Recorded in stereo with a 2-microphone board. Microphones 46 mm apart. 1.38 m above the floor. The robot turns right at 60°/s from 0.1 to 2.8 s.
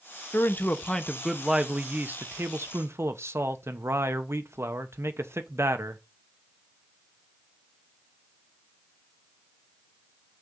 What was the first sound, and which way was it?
A man speaking, 125° left.